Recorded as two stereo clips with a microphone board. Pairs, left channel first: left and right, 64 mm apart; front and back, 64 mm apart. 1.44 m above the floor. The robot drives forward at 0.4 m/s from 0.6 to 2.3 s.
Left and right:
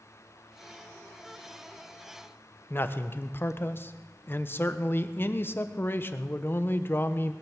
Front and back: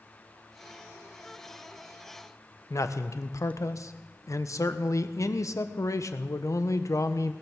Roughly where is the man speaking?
Ahead left.